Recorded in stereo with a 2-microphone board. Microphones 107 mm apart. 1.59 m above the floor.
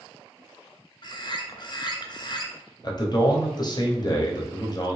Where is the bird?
45° left (ahead or behind), 0.5 m.